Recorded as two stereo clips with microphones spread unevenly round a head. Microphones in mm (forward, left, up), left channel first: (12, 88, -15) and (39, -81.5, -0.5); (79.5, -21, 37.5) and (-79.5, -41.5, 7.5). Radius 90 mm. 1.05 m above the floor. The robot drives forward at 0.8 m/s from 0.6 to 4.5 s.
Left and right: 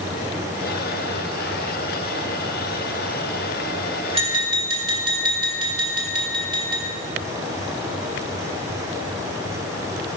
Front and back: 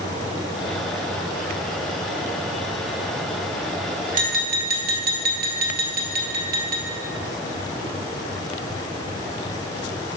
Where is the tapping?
135° right, 1.0 m; by 6.8 s 145° right, 1.2 m.